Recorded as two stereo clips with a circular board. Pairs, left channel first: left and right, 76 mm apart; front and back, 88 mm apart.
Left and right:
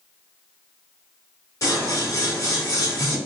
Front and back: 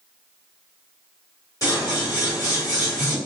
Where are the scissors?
45° left, 1.4 m.